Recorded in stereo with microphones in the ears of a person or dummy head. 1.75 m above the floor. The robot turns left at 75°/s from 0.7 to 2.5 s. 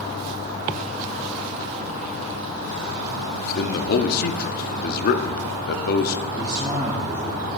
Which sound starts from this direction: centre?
A man speaking, at 6.4 s.